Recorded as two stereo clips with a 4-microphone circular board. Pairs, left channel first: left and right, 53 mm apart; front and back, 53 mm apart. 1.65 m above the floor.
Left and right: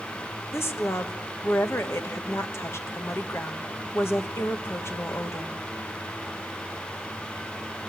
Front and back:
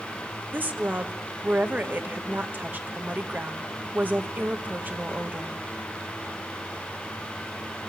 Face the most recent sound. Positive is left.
turn(degrees=125)